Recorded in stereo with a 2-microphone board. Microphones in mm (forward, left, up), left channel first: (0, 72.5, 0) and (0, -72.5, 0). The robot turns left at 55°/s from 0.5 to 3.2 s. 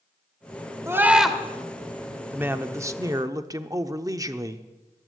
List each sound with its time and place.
0.9 s a scream: 20° right (ahead or behind), 1.5 m; by 1.4 s 5° left (ahead or behind), 1.5 m
2.3 s a man speaking: 10° right (ahead or behind), 0.7 m; by 4.7 s 25° right (ahead or behind), 0.7 m